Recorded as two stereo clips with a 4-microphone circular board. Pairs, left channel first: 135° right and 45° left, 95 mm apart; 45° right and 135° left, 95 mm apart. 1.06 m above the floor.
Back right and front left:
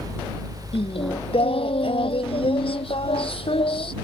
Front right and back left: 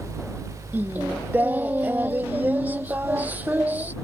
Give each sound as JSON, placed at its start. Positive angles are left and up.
{"t": 0.7, "sound": "singing", "azimuth_deg": -155}